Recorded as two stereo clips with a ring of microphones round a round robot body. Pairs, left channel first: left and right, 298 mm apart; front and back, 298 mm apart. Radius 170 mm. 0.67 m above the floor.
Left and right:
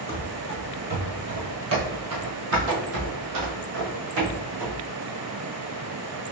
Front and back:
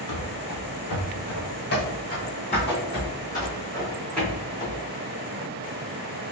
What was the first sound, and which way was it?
Running footsteps, 10° right.